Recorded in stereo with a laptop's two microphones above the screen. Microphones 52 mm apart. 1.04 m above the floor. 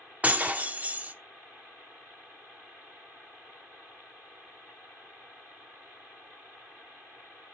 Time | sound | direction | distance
0.2 | breaking glass | 30° right (ahead or behind) | 0.8 m